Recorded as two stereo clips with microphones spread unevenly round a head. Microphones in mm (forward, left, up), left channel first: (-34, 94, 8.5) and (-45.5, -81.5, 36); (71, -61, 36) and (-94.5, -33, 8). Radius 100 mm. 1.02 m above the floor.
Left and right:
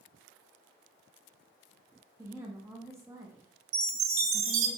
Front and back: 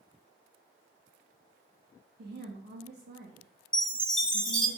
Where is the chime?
95° right, 2 m.